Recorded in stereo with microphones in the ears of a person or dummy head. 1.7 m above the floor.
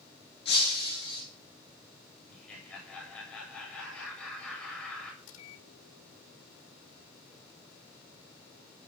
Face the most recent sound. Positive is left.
turn(degrees=80)